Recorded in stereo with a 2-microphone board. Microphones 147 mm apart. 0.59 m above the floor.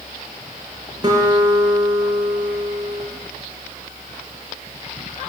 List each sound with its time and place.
1.0 s a guitar: 25° right (ahead or behind), 7 m